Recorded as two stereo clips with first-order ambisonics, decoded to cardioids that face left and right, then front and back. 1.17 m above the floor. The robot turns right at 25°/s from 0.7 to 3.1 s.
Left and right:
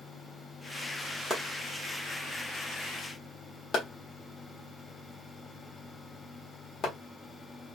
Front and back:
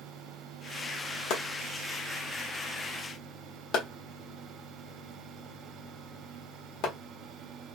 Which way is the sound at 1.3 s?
15° right.